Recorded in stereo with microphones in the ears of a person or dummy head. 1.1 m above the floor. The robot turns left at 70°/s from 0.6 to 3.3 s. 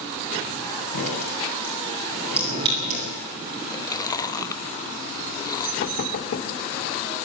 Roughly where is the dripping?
Left.